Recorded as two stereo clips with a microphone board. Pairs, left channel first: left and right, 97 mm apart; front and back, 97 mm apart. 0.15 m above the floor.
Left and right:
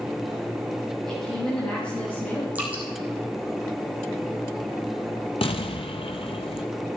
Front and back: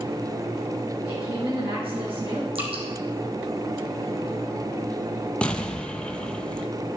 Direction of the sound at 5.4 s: 80° left.